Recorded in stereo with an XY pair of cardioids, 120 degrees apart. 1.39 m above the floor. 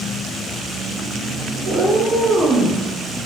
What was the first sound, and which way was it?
A cat meowing, 40° right.